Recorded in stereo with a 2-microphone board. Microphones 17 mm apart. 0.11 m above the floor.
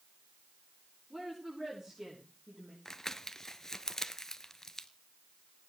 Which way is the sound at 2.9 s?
30° left (ahead or behind).